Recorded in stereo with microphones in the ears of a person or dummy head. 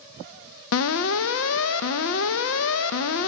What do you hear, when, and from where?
0.7 s an alarm: 75° left (ahead or behind), 0.6 m